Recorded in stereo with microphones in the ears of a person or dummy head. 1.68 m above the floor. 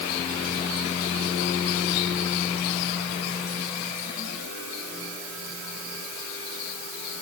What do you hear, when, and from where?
Only background noise.